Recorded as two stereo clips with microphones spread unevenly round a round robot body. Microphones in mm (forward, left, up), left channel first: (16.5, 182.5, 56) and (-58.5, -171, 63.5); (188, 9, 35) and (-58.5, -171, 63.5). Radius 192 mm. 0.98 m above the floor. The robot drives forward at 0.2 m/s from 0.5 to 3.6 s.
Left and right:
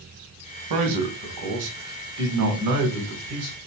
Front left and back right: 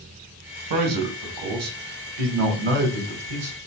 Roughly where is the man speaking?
Behind right.